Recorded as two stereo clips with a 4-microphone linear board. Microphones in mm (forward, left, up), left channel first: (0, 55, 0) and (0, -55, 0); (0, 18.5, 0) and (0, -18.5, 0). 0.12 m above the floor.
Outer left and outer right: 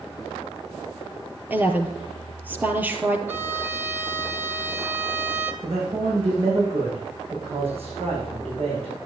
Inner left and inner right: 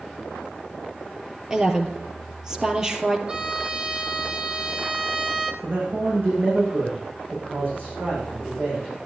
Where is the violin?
20° right (ahead or behind), 1.0 m.